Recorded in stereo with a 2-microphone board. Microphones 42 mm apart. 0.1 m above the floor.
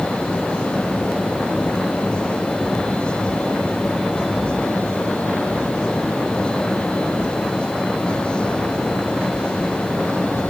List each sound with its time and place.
Only background noise.